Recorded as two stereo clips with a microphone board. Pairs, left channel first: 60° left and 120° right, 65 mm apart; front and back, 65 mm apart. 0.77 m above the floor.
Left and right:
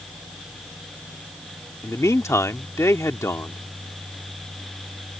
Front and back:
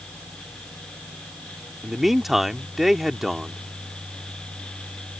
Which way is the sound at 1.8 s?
95° left.